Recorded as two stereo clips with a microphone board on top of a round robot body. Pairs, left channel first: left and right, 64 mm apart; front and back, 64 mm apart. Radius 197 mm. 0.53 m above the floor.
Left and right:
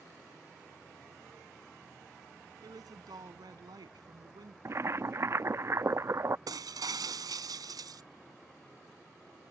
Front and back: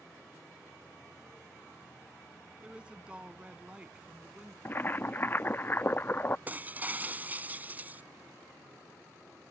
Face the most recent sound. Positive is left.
turn(degrees=-115)